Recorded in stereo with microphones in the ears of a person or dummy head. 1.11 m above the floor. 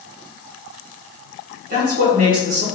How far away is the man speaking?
About 1.3 m.